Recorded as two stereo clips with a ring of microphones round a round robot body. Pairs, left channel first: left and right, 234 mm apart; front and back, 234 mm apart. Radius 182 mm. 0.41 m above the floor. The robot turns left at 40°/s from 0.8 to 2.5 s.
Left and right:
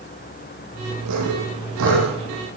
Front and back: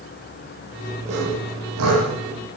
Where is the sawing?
110° right, 8 m; by 2.0 s 145° right, 8 m.